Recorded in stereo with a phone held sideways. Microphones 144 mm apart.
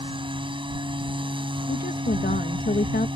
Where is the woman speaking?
85° left.